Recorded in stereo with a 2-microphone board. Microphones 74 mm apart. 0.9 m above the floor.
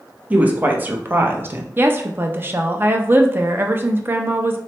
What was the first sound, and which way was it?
A woman speaking, 20° right (ahead or behind).